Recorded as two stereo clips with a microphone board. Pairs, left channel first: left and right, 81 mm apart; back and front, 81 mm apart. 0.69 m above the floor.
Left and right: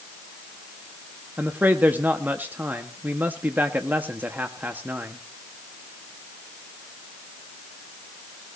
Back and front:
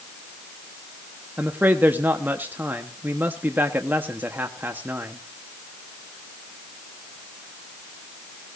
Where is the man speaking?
45° right, 1.1 m.